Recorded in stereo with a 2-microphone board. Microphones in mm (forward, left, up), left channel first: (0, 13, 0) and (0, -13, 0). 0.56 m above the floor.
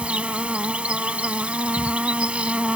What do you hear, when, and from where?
0.0 s an insect: 60° right (ahead or behind)